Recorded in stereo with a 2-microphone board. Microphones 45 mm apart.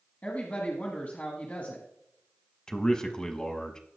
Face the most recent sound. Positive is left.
turn(degrees=15)  # may be behind; listen again after turning